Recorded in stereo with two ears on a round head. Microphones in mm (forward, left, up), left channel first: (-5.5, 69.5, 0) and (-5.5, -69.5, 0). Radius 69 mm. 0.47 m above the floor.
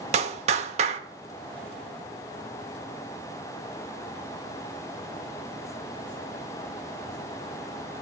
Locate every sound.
0.1 s a clap: 45° right (ahead or behind), 1.0 m